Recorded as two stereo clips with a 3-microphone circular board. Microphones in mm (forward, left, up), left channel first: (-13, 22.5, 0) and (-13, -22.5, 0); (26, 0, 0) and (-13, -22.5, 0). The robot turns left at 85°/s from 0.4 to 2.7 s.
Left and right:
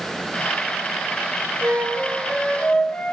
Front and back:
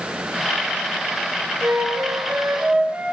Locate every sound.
1.6 s a flute: 115° right, 5.5 m; by 3.1 s 155° left, 5.5 m